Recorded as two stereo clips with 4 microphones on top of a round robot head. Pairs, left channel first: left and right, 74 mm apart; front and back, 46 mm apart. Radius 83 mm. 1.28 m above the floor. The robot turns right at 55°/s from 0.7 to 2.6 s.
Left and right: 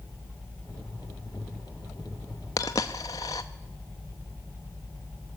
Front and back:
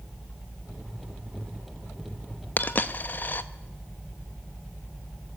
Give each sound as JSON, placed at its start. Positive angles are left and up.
{"t": 2.6, "sound": "a dropped coin", "azimuth_deg": 35, "distance_m": 0.8}